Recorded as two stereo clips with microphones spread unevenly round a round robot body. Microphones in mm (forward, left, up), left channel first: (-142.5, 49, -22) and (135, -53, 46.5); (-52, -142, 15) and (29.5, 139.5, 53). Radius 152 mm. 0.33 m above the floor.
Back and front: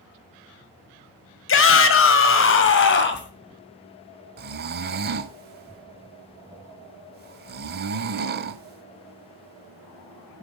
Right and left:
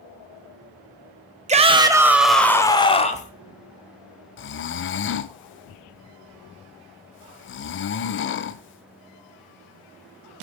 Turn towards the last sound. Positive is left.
turn(degrees=-85)